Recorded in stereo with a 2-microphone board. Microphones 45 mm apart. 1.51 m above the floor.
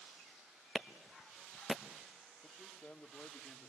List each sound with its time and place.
0.8 s a clap: 10° right (ahead or behind), 1.1 m
2.4 s a man speaking: 45° left (ahead or behind), 2.5 m